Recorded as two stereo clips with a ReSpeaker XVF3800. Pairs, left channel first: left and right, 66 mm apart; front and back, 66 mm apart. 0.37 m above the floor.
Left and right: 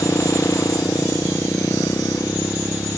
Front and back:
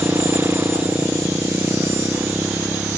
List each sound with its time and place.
0.0 s a motorcycle: 130° left